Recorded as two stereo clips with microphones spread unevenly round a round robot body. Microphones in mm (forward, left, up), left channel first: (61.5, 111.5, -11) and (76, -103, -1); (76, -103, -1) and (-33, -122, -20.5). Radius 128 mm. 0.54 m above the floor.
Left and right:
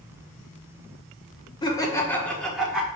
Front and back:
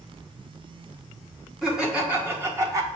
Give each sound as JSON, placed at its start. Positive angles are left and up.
{"t": 1.6, "sound": "laughter", "azimuth_deg": 125, "distance_m": 1.1}